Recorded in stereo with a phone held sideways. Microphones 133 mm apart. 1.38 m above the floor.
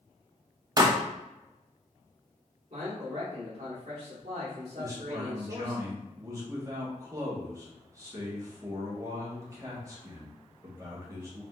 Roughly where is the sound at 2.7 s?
Right.